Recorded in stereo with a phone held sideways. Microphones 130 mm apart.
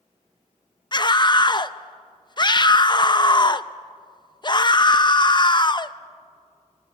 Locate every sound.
0.9 s a scream: 35° left (ahead or behind), 0.7 m